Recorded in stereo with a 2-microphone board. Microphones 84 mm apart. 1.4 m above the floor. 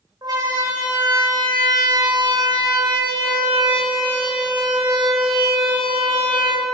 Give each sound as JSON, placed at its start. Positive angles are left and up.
{"t": 0.2, "sound": "a siren", "side_deg": -55, "distance_m": 6.5}